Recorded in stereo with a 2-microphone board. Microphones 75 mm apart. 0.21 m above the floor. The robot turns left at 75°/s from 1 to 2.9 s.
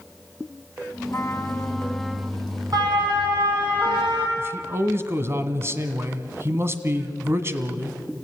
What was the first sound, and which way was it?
A trumpet, 75° left.